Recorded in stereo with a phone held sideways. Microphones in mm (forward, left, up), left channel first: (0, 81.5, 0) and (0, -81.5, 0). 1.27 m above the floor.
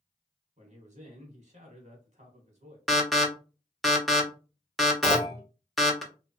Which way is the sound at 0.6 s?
50° right (ahead or behind).